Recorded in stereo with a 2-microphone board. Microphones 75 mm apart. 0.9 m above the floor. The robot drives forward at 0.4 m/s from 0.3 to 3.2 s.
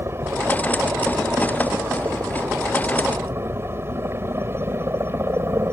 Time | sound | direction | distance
0.0 | a helicopter | 35° right (ahead or behind) | ?